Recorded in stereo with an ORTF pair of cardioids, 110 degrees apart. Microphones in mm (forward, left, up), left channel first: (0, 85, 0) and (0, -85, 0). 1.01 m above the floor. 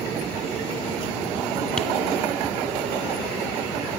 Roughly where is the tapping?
Ahead.